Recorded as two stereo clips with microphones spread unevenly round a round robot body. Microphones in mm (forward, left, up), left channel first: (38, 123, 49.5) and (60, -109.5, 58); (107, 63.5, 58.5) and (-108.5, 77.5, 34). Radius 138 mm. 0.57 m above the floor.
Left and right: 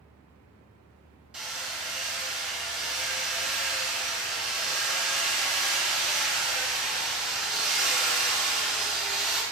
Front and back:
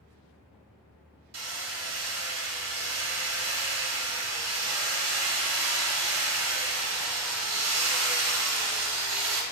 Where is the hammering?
170° right, 1.2 m.